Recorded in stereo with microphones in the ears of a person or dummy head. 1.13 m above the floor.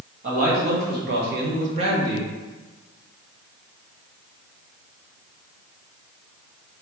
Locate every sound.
0.2 s a man speaking: 50° right (ahead or behind), 1.8 m; by 2.3 s 10° right (ahead or behind), 1.0 m